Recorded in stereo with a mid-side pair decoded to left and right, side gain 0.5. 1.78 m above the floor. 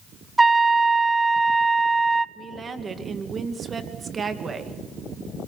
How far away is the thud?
No thud in this recording.